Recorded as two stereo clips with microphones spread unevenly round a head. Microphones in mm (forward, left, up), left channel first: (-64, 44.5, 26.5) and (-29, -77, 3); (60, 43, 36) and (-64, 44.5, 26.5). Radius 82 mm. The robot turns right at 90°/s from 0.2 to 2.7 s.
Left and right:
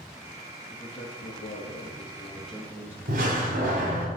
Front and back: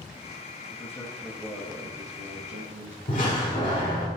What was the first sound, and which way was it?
A man speaking, 35° left.